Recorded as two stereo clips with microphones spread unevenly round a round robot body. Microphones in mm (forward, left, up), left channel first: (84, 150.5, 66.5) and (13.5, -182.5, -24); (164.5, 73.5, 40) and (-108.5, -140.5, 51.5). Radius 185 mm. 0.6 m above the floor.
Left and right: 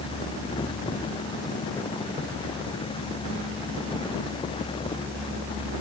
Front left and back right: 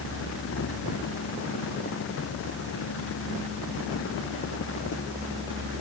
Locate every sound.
Only background noise.